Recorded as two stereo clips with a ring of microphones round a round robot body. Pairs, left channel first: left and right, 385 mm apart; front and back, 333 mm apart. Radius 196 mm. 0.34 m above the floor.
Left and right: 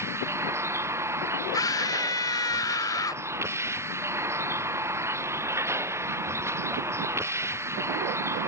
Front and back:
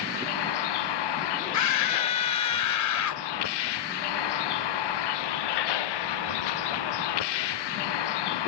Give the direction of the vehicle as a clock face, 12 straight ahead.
12 o'clock.